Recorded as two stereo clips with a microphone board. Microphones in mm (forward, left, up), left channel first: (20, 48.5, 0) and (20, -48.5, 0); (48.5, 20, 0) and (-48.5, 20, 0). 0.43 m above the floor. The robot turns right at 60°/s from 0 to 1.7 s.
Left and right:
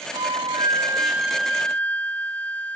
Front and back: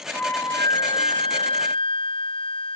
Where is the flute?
75° right; by 2.8 s 15° left.